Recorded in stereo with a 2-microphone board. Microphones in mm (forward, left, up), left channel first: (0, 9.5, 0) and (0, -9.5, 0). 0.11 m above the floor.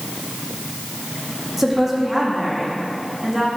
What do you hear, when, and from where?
1.6 s a woman speaking: 5° right (ahead or behind), 4 m; by 3.5 s 10° right (ahead or behind), 5.5 m